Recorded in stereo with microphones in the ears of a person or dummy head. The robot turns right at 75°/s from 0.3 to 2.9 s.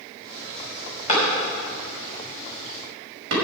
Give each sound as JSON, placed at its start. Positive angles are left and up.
{"t": 1.1, "sound": "a clap", "side_deg": 40, "distance_m": 5.5}